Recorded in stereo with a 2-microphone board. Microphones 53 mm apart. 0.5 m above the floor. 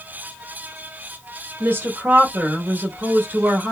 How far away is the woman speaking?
About 0.8 m.